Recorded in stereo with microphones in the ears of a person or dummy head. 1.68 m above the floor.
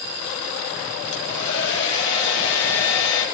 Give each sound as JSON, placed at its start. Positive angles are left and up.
{"t": 1.1, "sound": "a hair dryer", "side_deg": 65, "distance_m": 3.5}